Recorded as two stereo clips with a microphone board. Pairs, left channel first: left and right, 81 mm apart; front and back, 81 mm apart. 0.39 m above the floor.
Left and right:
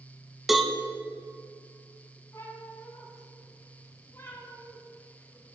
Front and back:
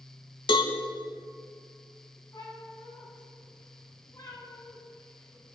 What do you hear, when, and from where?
0.5 s a cowbell: 5° right, 0.7 m
2.3 s a cat meowing: 40° left, 2 m